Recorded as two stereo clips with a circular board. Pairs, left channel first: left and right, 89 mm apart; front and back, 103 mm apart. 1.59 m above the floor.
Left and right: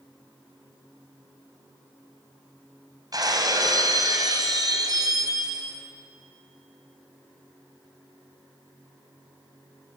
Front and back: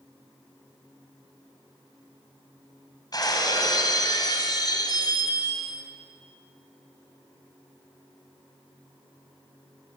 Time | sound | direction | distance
3.1 | breaking glass | 50° right | 4 m